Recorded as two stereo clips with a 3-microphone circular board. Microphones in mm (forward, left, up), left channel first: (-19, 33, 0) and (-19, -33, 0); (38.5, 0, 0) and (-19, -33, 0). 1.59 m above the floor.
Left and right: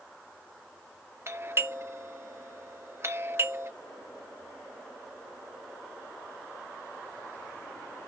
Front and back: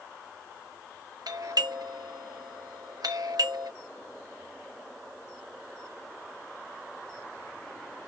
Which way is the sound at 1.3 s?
140° right.